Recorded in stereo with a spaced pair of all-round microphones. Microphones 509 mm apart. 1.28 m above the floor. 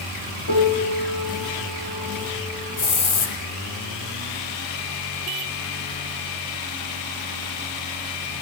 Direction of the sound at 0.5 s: 40° left (ahead or behind).